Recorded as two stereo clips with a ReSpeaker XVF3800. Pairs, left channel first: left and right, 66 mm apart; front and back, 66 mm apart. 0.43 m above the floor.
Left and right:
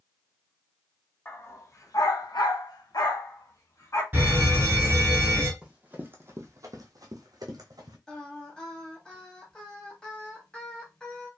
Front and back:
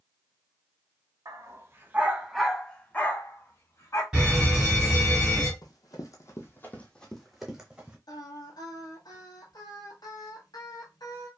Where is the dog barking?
145° left, 0.8 m; by 4.0 s 45° left, 1.2 m.